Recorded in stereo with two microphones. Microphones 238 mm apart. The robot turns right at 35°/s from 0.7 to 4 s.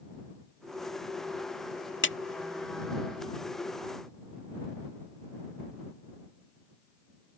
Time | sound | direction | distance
2.0 | a clap | 50° left (ahead or behind) | ?